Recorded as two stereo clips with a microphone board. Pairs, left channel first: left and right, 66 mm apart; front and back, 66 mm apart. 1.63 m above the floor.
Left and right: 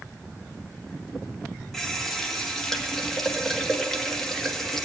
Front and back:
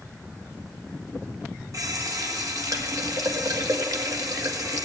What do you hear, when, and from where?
1.7 s a running tap: 170° left, 1.6 m